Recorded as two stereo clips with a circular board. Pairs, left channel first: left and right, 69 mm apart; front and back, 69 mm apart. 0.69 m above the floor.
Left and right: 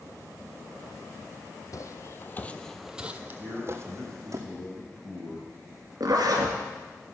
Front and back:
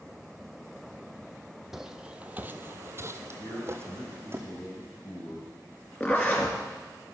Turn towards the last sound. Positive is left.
turn(degrees=-65)